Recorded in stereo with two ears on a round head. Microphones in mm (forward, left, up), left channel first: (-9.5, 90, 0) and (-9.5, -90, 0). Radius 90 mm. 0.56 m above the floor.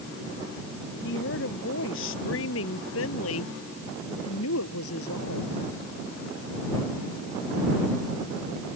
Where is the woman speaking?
65° left (ahead or behind); by 5.6 s 80° left.